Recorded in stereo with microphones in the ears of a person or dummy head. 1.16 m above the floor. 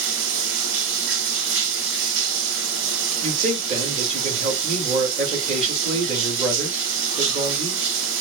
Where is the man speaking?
35° right (ahead or behind), 2 m.